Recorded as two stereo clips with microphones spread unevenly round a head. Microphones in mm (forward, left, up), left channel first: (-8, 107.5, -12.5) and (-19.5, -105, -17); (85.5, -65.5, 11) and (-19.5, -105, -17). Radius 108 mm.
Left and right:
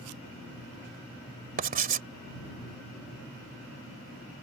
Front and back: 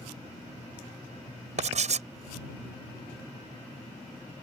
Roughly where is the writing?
Behind right.